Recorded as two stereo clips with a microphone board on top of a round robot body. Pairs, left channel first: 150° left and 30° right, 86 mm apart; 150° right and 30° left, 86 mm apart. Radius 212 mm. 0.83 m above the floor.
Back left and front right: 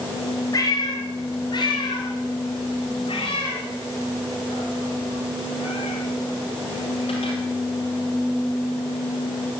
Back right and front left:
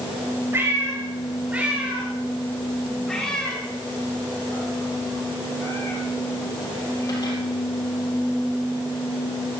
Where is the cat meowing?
95° left, 3 m; by 7.4 s 160° left, 4 m.